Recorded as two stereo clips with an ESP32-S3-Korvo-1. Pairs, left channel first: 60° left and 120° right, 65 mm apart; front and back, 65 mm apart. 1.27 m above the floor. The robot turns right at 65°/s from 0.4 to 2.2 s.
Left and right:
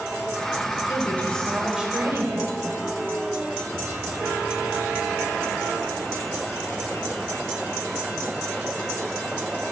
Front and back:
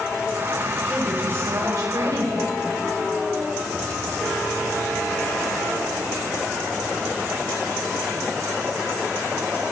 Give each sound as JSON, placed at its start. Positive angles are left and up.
{"t": 0.9, "sound": "a woman speaking", "azimuth_deg": 105, "distance_m": 4.5}